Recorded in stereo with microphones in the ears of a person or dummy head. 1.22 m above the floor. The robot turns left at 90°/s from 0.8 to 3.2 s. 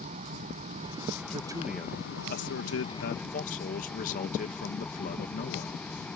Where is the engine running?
135° right; by 6.2 s 10° left.